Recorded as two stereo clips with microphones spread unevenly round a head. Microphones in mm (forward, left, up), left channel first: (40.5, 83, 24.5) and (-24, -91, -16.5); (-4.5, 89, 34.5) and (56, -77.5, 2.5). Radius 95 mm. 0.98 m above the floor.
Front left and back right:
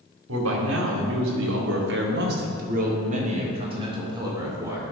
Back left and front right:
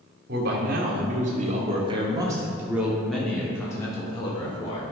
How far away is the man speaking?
About 2.5 m.